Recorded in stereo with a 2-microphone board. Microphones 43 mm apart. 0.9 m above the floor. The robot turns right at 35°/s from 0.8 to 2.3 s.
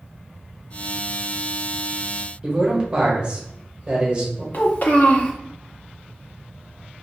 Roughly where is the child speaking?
Left.